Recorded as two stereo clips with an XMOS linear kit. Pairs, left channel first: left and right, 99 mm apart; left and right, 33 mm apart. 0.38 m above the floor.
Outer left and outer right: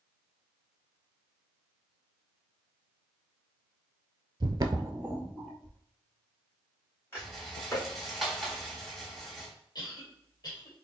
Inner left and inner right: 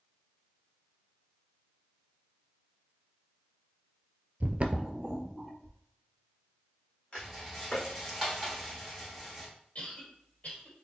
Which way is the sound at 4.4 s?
55° right (ahead or behind).